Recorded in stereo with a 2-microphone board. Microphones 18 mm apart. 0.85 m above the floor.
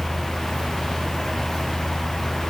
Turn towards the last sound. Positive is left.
No sound to turn to.